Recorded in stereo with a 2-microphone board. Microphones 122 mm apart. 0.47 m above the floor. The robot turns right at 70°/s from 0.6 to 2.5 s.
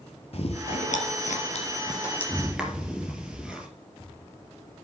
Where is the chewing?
55° left (ahead or behind), 3.5 m; by 3.7 s 10° right (ahead or behind), 3.5 m.